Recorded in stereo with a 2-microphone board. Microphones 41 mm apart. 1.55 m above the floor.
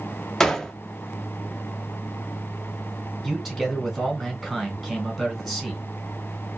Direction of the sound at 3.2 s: 5° right (ahead or behind).